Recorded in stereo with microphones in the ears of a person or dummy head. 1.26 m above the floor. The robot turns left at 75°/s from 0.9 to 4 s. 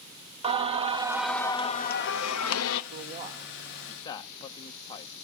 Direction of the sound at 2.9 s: 55° right (ahead or behind).